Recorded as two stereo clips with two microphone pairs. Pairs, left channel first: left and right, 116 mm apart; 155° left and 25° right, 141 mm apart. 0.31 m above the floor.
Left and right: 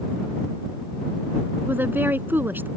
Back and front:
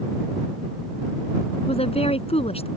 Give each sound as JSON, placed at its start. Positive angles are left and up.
{"t": 1.7, "sound": "a woman speaking", "azimuth_deg": -165}